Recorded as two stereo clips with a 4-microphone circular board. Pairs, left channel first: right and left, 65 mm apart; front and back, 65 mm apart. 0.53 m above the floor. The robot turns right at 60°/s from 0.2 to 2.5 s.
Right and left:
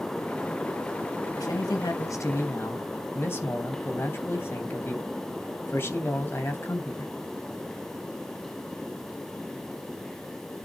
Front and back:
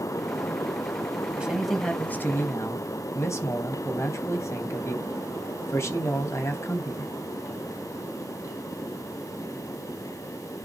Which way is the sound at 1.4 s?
105° right.